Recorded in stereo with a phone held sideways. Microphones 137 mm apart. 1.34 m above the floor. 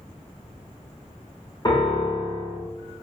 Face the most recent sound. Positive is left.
turn(degrees=30)  # may be behind; listen again after turning